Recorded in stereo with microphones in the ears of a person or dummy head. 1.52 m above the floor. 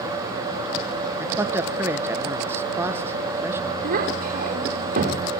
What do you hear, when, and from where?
1.2 s a man speaking: 15° right (ahead or behind), 1.4 m
3.8 s a child speaking: 50° right (ahead or behind), 3.5 m